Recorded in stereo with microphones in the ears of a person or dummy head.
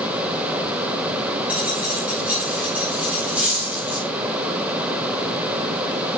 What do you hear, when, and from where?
1.5 s a dropped coin: 5° right (ahead or behind), 3.5 m